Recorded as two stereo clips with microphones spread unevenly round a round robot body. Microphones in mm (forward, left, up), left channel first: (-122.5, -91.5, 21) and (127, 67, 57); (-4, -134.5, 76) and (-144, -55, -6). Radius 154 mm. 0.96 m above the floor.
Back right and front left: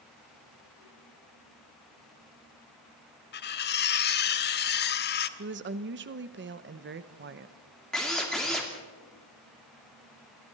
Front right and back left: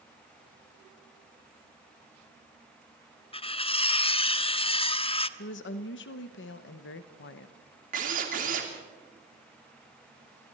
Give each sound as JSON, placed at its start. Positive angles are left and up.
{"t": 3.3, "sound": "cutlery clinking", "azimuth_deg": -90, "distance_m": 0.9}
{"t": 5.4, "sound": "a woman speaking", "azimuth_deg": -15, "distance_m": 0.9}
{"t": 7.9, "sound": "a drill", "azimuth_deg": 125, "distance_m": 2.5}